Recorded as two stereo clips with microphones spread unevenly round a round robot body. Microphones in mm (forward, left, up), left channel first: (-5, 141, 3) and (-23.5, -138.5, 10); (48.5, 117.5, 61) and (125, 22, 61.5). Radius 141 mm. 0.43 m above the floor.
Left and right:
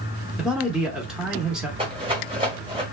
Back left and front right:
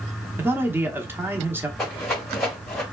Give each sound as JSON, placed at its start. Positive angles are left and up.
{"t": 0.4, "sound": "a man speaking", "azimuth_deg": -5, "distance_m": 0.8}
{"t": 1.8, "sound": "a rattle", "azimuth_deg": -150, "distance_m": 1.6}